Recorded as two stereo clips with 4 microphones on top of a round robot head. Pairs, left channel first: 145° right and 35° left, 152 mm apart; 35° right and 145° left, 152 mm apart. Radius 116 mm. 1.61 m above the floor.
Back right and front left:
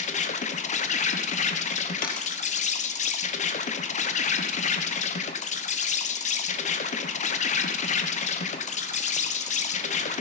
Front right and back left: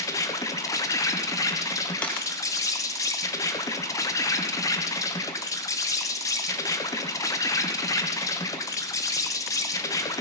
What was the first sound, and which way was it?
An insect, 105° right.